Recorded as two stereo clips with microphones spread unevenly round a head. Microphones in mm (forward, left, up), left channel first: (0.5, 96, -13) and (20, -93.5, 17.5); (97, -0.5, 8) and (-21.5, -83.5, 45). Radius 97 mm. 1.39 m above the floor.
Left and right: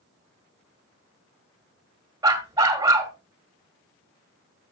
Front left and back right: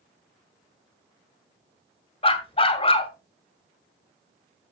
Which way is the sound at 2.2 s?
20° right.